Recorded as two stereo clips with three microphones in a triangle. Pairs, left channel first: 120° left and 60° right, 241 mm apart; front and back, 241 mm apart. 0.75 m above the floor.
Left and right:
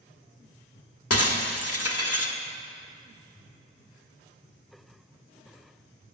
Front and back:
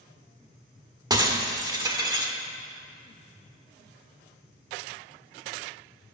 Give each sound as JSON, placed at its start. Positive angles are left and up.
{"t": 1.1, "sound": "breaking glass", "azimuth_deg": 110, "distance_m": 1.3}